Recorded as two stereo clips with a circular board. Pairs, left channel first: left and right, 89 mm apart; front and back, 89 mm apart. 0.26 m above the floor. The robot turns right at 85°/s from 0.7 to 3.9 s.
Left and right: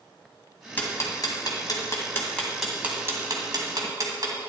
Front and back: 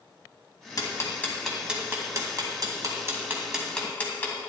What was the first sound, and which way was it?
Ticking, 25° left.